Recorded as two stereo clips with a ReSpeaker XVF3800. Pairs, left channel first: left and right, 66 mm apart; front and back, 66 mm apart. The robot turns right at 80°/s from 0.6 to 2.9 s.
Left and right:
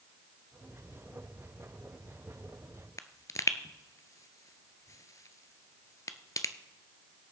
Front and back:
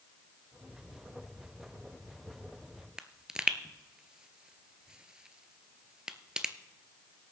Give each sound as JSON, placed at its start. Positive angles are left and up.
{"t": 3.0, "sound": "a pop", "azimuth_deg": 105, "distance_m": 0.6}